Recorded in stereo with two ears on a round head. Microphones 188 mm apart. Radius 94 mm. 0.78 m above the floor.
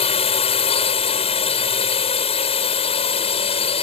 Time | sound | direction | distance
0.0 | a drone | 30° left (ahead or behind) | ?